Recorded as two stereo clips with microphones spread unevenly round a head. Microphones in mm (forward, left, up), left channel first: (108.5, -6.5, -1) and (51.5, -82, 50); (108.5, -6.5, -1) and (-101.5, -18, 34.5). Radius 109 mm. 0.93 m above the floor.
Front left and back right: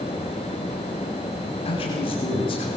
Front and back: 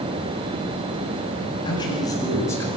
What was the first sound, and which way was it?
A man speaking, 75° left.